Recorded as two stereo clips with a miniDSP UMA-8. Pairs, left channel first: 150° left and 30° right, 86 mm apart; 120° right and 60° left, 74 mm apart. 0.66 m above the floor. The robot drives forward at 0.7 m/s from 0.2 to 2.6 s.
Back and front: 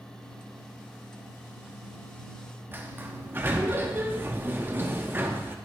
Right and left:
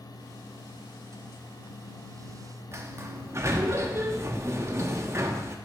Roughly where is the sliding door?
Ahead left.